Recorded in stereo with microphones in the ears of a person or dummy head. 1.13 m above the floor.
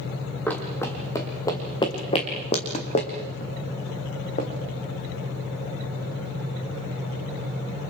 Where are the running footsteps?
10° left (ahead or behind), 3.5 m; by 4.5 s 50° left (ahead or behind), 4.5 m.